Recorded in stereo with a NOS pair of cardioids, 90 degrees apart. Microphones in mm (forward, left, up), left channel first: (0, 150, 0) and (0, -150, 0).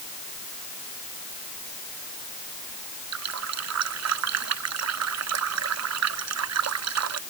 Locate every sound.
3.1 s a running tap: 60° right